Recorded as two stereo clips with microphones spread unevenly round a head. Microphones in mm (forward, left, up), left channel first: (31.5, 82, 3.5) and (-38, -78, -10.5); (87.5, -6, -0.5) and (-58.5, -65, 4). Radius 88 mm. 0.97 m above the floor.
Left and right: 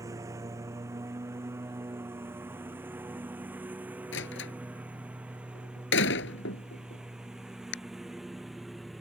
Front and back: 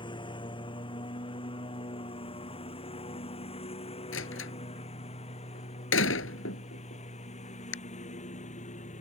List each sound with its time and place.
0.0 s a lawn mower: 40° right; by 9.0 s 25° right
4.1 s a door slam: 40° left